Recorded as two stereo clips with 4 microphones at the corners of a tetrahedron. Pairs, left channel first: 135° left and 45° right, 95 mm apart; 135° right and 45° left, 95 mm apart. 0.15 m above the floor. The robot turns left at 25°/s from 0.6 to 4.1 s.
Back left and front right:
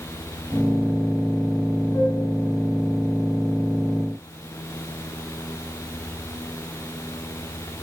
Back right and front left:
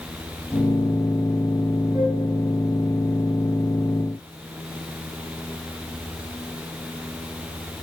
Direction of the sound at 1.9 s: 100° left.